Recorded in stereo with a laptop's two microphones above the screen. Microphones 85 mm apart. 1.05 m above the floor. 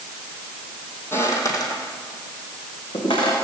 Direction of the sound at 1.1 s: 30° left (ahead or behind).